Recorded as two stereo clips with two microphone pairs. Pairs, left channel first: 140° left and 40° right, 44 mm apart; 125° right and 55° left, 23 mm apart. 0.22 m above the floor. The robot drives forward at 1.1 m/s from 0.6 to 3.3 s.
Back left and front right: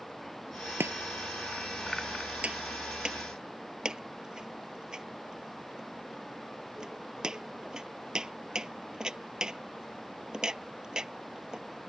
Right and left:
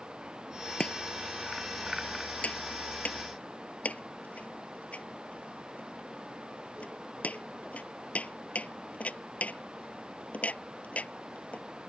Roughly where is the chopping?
Right.